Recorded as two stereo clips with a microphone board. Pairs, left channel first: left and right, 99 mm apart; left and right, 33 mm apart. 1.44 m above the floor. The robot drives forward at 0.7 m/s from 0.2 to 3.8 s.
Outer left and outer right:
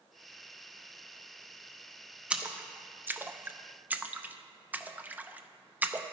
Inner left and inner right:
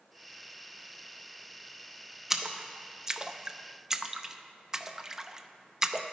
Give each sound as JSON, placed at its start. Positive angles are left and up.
{"t": 2.3, "sound": "a splash", "side_deg": -10, "distance_m": 0.9}